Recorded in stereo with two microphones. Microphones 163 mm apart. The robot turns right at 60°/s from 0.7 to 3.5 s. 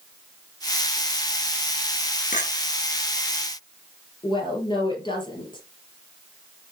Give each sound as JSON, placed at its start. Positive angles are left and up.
{"t": 2.3, "sound": "a clink", "side_deg": 55, "distance_m": 1.6}
{"t": 4.2, "sound": "a woman speaking", "side_deg": 30, "distance_m": 4.0}